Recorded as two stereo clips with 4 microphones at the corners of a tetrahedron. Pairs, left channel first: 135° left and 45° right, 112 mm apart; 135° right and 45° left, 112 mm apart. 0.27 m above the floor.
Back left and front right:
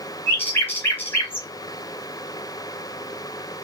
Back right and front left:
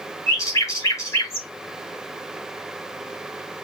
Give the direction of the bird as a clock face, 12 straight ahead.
6 o'clock.